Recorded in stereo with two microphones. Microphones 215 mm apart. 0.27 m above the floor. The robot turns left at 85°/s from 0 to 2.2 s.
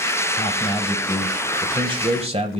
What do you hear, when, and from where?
0.4 s a man speaking: 30° left (ahead or behind), 1.0 m; by 2.6 s 30° right (ahead or behind), 1.0 m